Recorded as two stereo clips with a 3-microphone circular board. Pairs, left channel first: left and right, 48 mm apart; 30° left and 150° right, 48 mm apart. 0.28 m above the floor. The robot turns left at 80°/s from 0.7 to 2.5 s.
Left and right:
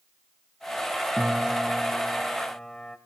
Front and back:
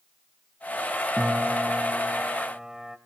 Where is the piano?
105° right, 1.0 m; by 3.0 s 150° left, 1.0 m.